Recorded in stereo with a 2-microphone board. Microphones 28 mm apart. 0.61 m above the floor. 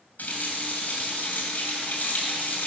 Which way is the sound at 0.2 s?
75° left (ahead or behind).